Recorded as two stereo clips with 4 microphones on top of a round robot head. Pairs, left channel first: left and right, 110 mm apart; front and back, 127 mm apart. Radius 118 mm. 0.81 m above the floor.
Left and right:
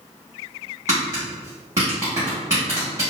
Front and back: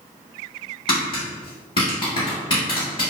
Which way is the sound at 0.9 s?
30° right.